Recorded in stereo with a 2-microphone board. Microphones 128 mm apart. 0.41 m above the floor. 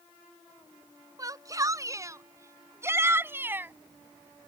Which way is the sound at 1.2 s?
30° right (ahead or behind).